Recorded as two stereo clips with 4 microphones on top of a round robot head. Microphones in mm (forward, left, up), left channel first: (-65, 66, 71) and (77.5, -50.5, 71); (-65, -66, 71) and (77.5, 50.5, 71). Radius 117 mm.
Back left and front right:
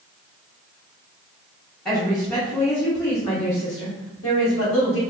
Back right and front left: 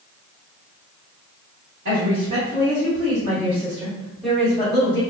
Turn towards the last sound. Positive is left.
turn(degrees=155)